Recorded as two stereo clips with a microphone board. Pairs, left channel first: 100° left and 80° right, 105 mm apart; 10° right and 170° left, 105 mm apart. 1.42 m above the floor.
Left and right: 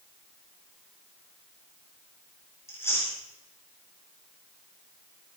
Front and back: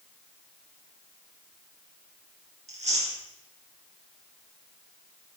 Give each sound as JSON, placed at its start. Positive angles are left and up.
{"t": 2.7, "sound": "chewing", "azimuth_deg": 170, "distance_m": 4.5}